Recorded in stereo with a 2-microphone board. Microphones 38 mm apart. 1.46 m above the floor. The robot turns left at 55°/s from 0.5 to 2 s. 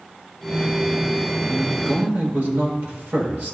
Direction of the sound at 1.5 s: 85° right.